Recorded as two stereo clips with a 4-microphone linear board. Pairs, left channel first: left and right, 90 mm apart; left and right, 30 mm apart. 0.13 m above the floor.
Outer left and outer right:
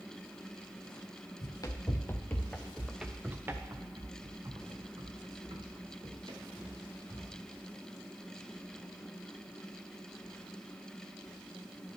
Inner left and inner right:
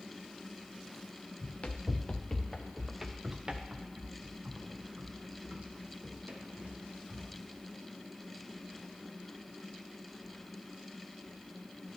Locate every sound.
1.4 s running footsteps: 45° left (ahead or behind), 1.0 m; by 7.3 s 65° right (ahead or behind), 2.5 m